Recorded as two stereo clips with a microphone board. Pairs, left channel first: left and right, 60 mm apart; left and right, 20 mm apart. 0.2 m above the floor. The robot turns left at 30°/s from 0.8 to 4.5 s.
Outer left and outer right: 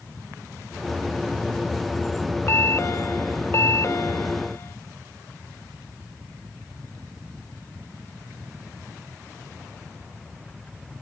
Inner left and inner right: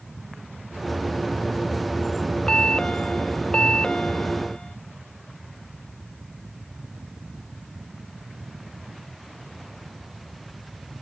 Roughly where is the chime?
Behind left.